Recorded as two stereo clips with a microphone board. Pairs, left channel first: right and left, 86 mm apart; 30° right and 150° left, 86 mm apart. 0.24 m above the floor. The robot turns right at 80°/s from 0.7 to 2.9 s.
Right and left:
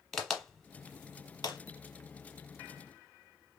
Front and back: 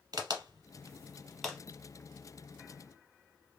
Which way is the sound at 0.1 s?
175° right.